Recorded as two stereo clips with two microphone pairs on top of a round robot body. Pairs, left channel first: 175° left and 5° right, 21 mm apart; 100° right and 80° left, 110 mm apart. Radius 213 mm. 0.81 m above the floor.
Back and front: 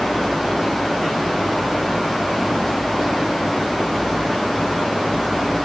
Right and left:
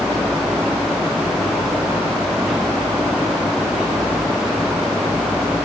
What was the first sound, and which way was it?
Only background noise.